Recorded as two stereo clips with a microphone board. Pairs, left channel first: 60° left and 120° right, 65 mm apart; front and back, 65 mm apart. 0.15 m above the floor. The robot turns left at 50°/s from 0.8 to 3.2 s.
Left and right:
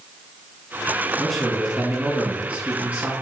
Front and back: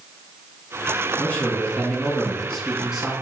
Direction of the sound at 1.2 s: 20° right.